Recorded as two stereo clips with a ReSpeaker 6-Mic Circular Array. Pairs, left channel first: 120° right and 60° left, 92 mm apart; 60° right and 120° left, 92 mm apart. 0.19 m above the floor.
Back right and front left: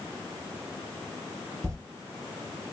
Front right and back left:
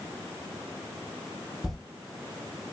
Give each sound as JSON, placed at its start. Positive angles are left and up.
{"t": 1.6, "sound": "a toilet flushing", "azimuth_deg": 30, "distance_m": 0.6}